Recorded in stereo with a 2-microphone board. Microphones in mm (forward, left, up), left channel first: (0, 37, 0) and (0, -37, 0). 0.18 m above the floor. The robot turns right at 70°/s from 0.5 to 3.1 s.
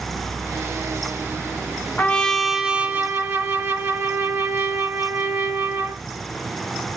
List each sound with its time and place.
2.0 s a trumpet: 145° left, 0.6 m; by 6.0 s 135° right, 0.6 m